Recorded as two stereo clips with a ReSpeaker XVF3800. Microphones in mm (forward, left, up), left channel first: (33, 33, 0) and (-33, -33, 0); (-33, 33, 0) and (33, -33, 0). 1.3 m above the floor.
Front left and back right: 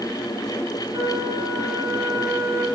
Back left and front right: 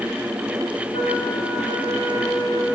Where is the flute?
165° left, 5.5 m.